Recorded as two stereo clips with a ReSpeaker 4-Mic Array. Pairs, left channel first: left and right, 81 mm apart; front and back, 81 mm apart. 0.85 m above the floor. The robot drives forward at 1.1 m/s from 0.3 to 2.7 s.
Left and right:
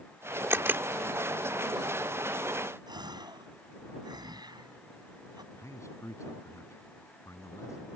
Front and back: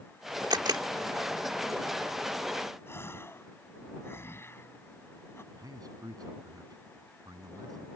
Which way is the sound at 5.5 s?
140° left.